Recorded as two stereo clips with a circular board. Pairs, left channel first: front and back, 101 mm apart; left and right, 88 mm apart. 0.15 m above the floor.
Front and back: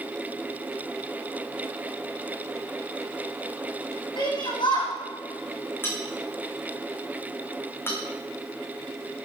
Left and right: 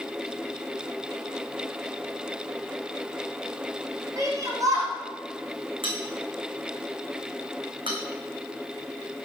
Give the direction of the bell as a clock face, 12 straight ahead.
2 o'clock.